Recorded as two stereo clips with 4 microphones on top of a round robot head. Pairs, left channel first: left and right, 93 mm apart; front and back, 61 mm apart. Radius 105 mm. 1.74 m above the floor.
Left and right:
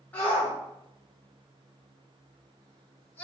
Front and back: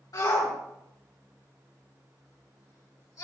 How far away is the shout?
About 6 m.